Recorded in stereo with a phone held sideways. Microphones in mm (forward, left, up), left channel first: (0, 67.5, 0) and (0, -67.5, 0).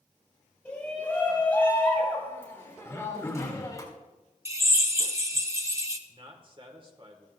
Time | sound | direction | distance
0.7 | a shout | 10° left (ahead or behind) | 5.5 m
2.9 | throat clearing | 20° left (ahead or behind) | 1.1 m
4.5 | a drill | 20° right (ahead or behind) | 0.8 m
6.1 | a man speaking | 40° right (ahead or behind) | 1.6 m